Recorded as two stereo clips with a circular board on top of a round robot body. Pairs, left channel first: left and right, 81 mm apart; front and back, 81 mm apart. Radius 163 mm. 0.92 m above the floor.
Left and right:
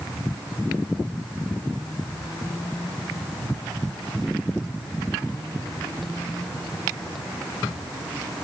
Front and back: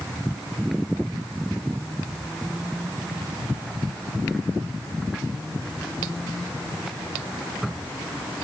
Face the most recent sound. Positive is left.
No sound to turn to.